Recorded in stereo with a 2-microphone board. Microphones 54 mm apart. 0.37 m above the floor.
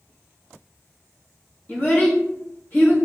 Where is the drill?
No drill in this recording.